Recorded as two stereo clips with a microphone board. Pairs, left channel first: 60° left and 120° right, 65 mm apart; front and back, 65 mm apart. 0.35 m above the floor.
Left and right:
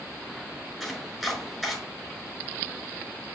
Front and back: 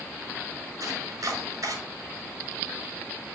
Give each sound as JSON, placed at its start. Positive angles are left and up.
{"t": 0.8, "sound": "chopping", "azimuth_deg": 150, "distance_m": 5.0}